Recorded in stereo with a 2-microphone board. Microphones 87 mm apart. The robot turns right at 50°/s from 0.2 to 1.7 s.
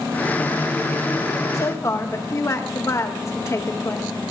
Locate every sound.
1.5 s a woman speaking: 45° left (ahead or behind), 0.9 m; by 4.1 s 35° left (ahead or behind), 0.9 m